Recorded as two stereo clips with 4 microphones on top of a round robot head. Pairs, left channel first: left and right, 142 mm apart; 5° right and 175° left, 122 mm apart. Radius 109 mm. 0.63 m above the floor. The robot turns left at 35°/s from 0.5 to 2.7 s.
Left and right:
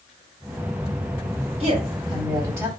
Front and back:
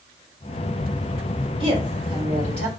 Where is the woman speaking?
125° right, 2 m; by 2.7 s 165° right, 2 m.